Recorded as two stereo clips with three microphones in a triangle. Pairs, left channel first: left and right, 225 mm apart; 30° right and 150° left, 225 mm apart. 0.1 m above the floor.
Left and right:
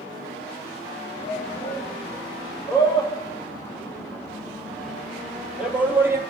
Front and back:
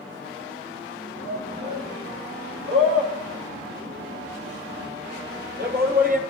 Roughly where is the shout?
Behind left.